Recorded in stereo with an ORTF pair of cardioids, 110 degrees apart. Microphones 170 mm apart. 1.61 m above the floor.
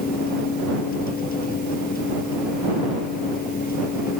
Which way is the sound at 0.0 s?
60° left.